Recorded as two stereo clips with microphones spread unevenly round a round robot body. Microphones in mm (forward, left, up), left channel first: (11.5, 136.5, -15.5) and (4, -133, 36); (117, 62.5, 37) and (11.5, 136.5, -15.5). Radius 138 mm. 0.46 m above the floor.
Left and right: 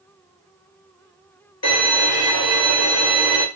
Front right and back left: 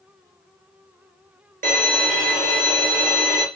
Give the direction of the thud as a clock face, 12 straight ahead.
I don't hear a thud.